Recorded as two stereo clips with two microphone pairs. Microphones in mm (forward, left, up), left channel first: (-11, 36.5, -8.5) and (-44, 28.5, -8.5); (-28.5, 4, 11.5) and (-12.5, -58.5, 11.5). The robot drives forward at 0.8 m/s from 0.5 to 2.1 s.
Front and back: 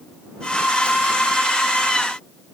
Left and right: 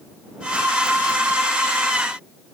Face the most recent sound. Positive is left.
No sound to turn to.